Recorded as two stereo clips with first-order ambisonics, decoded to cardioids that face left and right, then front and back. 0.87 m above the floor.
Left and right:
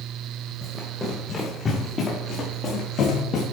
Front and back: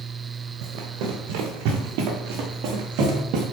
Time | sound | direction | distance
0.6 | running footsteps | 175° left | 5 m